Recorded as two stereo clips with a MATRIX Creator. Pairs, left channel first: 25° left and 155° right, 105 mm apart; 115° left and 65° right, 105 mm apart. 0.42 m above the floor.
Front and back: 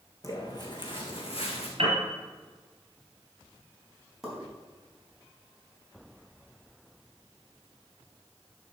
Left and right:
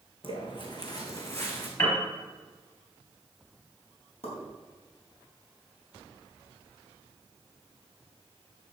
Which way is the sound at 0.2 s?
80° left.